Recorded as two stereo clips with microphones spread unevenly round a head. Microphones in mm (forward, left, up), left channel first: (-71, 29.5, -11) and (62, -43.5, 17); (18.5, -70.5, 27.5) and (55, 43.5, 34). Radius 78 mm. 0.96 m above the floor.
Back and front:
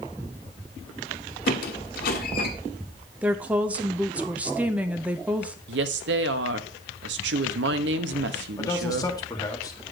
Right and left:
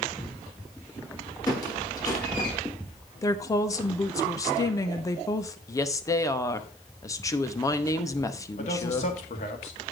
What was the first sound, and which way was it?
A squeak, 175° right.